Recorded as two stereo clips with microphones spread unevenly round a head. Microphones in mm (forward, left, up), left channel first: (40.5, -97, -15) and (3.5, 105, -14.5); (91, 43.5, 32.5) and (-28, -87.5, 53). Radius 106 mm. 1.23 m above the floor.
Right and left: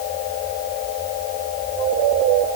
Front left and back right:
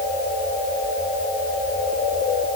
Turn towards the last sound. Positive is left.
No sound to turn to.